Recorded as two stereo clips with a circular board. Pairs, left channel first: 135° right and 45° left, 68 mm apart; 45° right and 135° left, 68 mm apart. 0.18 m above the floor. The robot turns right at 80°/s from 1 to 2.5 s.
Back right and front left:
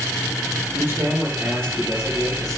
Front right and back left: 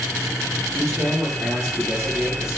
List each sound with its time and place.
0.8 s a man speaking: 100° left, 4 m; by 2.6 s 140° right, 4 m